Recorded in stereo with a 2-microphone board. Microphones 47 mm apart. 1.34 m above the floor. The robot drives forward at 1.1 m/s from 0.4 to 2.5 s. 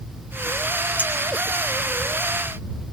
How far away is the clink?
About 6 m.